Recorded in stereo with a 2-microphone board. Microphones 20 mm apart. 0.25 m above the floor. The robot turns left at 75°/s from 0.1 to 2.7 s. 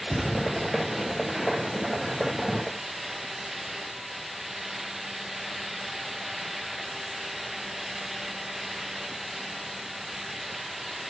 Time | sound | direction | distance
0.1 | a thud | 80° left | 7.5 m